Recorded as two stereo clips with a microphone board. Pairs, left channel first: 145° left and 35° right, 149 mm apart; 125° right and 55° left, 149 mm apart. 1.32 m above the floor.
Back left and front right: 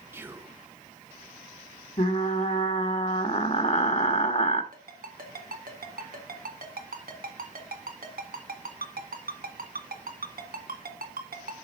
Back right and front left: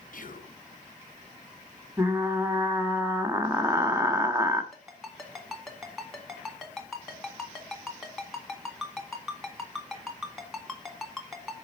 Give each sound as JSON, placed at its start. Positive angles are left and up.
{"t": 0.1, "sound": "whispering", "azimuth_deg": -110, "distance_m": 0.9}
{"t": 2.0, "sound": "frying", "azimuth_deg": 125, "distance_m": 1.1}
{"t": 4.7, "sound": "a ringtone", "azimuth_deg": -35, "distance_m": 1.8}